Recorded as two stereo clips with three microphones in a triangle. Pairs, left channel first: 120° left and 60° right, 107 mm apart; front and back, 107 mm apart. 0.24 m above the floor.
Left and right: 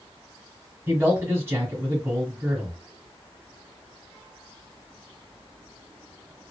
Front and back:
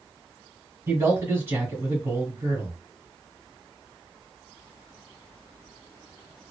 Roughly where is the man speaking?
Behind right.